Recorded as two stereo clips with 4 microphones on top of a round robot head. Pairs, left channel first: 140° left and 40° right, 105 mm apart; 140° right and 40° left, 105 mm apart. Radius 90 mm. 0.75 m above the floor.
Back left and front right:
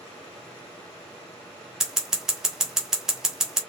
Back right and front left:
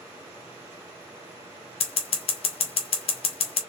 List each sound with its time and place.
1.8 s scissors: 125° right, 1.5 m